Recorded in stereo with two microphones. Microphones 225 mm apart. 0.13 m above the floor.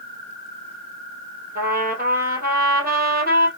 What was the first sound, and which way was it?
A trumpet, 40° right (ahead or behind).